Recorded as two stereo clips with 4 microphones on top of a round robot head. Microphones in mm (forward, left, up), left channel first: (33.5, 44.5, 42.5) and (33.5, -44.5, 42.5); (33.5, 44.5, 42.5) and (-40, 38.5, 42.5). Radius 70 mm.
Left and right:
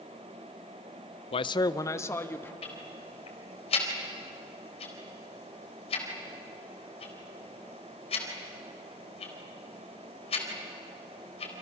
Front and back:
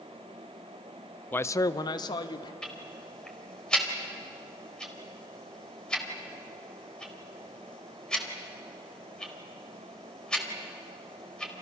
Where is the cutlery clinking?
No cutlery clinking in this recording.